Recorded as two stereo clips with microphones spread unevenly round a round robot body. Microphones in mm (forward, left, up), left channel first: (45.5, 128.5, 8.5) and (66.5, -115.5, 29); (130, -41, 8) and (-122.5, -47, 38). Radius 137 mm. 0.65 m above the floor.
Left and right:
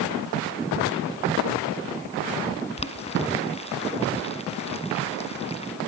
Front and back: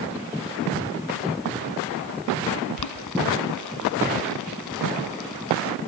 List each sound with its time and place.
2.8 s boiling: 30° left, 1.5 m